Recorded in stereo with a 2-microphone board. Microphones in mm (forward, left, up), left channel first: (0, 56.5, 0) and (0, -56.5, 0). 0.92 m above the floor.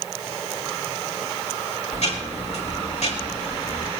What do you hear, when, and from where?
1.9 s ticking: 75° left (ahead or behind), 4.5 m